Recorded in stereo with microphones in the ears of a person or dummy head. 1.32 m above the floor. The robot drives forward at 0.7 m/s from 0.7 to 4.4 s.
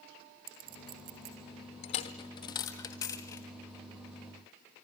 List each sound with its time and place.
0.5 s a clink: 50° right (ahead or behind), 2 m; by 1.4 s 45° right (ahead or behind), 2.5 m
1.8 s a dropped coin: 20° left (ahead or behind), 1.0 m; by 3.5 s 15° left (ahead or behind), 1.6 m